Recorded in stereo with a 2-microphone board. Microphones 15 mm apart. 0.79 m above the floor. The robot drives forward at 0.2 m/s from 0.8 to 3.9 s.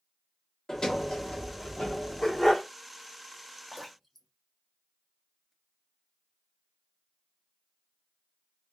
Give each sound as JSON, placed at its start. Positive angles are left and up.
{"t": 0.7, "sound": "a sliding door", "side_deg": 65, "distance_m": 1.2}
{"t": 2.2, "sound": "a dog barking", "side_deg": 35, "distance_m": 1.1}
{"t": 3.7, "sound": "dripping", "side_deg": 20, "distance_m": 1.1}